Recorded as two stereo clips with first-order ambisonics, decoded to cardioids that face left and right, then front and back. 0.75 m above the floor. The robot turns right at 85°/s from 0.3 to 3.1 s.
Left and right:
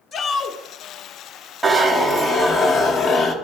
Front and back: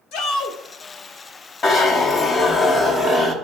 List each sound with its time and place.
0.1 s a shout: 20° left, 1.0 m; by 0.6 s 45° left, 1.0 m
1.6 s a zipper: 5° right, 0.9 m; by 3.3 s 120° left, 0.9 m